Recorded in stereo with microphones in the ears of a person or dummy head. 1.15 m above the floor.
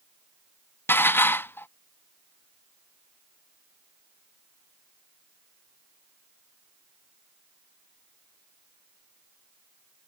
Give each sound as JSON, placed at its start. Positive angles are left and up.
{"t": 0.9, "sound": "dishes clattering", "side_deg": 10}